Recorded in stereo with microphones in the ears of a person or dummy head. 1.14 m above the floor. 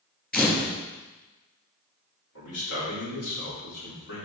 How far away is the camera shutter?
About 2 m.